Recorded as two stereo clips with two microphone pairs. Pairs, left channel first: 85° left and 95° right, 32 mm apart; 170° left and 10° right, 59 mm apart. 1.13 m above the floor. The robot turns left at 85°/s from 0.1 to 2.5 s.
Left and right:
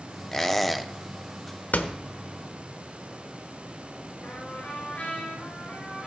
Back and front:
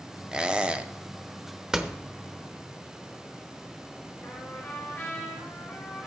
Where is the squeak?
35° left, 0.6 m; by 0.9 s 15° right, 0.6 m.